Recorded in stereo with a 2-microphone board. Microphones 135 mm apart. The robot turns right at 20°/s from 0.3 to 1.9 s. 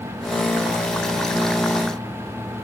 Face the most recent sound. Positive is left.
No sound to turn to.